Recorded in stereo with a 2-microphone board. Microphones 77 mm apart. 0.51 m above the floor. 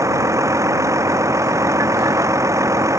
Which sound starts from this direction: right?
A vehicle, at 0.0 s.